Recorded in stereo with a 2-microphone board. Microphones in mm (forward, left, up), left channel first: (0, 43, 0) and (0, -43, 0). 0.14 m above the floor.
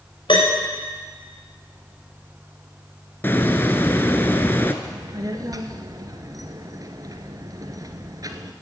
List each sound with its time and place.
0.3 s a piano: 70° left (ahead or behind), 6 m
3.2 s a hiss: 25° left (ahead or behind), 1.0 m
4.8 s a child speaking: 45° right (ahead or behind), 1.3 m